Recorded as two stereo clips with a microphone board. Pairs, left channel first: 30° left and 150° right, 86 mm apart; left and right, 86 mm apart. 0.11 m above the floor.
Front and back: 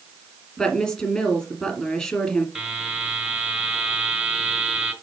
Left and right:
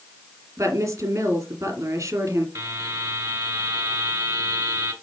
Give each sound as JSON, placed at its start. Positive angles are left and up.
{"t": 0.6, "sound": "a woman speaking", "azimuth_deg": -45, "distance_m": 2.5}
{"t": 2.5, "sound": "a buzzer", "azimuth_deg": -65, "distance_m": 1.5}